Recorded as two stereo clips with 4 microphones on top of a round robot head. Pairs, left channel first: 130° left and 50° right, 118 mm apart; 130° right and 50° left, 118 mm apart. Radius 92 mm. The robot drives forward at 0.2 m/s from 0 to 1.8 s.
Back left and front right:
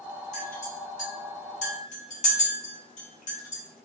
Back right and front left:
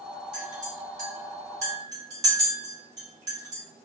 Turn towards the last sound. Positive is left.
turn(degrees=120)